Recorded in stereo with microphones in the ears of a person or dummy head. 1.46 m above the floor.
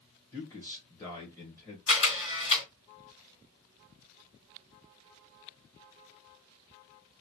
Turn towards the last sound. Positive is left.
turn(degrees=40)  # may be behind; listen again after turning